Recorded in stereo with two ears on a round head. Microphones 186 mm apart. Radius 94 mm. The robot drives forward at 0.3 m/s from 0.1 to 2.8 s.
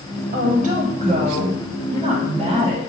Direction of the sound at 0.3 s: 40° right (ahead or behind).